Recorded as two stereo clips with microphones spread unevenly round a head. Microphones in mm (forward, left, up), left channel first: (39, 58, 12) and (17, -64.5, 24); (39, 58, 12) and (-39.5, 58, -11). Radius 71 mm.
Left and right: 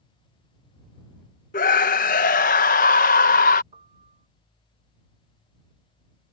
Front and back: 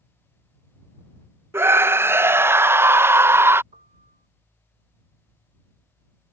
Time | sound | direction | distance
1.5 | a scream | 115° left | ?
3.7 | a piano | 160° right | ?